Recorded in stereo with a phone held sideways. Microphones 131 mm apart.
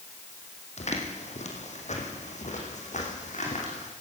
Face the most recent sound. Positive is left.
turn(degrees=65)  # may be behind; listen again after turning